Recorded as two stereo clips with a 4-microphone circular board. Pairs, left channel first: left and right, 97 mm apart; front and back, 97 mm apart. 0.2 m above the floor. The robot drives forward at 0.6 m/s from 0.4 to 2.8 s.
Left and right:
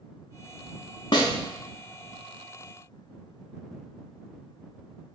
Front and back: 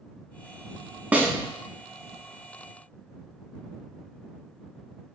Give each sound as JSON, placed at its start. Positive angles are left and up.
{"t": 1.1, "sound": "a snare drum", "azimuth_deg": 110, "distance_m": 0.6}